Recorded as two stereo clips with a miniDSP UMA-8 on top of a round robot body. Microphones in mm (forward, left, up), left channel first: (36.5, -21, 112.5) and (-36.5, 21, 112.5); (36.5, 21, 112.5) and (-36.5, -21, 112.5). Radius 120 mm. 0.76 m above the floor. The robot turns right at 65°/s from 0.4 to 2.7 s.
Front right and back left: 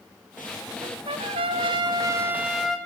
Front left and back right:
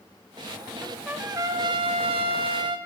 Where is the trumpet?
120° left, 0.8 m; by 2.8 s 120° right, 0.8 m.